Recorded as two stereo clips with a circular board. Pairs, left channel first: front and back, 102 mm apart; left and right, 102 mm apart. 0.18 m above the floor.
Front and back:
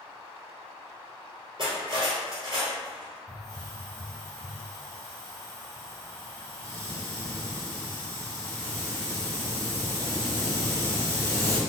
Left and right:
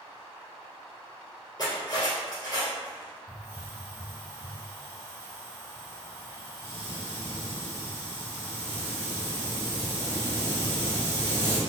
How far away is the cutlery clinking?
About 1.9 m.